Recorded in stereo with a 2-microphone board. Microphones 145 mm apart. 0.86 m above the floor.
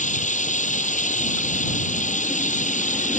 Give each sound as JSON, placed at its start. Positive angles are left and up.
{"t": 0.0, "sound": "running water", "side_deg": 60}